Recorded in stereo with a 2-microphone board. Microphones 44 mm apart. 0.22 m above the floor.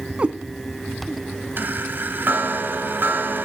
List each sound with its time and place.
0.2 s a cat meowing: 30° right (ahead or behind), 0.6 m
1.6 s a chime: 50° right (ahead or behind), 2.5 m